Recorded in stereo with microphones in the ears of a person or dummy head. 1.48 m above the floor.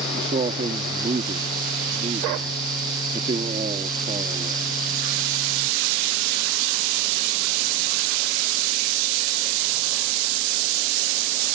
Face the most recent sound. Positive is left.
turn(degrees=-30)  # may be behind; listen again after turning